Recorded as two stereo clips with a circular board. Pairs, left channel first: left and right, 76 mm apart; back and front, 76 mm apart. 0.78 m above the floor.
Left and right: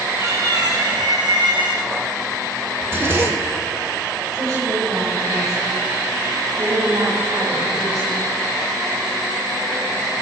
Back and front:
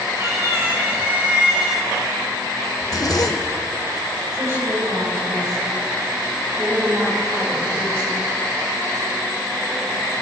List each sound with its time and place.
0.2 s a cat meowing: 50° right, 2.5 m; by 1.9 s 90° right, 1.8 m
2.8 s a zipper: 145° right, 0.7 m
4.3 s a woman speaking: 50° right, 3.5 m